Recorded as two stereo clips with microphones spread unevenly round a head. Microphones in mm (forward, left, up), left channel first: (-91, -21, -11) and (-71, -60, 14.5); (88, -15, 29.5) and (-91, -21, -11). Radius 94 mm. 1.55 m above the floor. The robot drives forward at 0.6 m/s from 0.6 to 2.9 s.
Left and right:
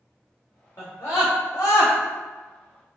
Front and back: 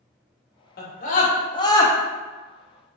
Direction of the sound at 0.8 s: 45° left.